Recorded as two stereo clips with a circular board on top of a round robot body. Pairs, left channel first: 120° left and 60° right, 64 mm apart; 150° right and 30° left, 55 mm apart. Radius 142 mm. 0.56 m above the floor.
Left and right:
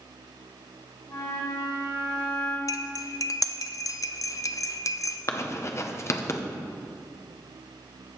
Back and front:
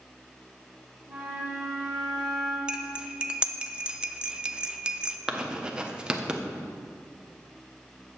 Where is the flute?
105° left, 3 m.